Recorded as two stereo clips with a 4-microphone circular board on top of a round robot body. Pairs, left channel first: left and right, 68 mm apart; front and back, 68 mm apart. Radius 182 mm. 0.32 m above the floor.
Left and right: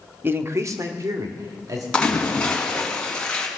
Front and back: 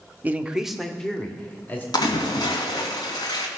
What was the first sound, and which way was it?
A man speaking, 130° right.